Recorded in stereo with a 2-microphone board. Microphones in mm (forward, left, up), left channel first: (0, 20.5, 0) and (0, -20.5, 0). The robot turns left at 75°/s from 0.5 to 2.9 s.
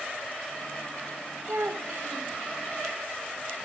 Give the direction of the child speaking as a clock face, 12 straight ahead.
2 o'clock.